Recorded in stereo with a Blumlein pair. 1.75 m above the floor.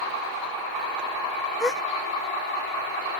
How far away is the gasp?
About 0.5 m.